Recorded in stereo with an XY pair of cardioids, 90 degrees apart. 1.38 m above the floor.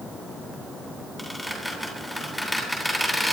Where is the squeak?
5° left, 9 m.